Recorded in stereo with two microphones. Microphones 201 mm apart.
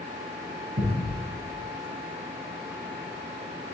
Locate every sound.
0.8 s a thud: 75° right (ahead or behind), 3 m